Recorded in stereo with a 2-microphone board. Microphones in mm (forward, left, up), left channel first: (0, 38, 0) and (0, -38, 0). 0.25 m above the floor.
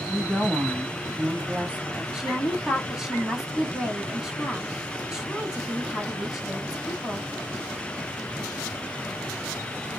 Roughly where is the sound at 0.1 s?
Centre.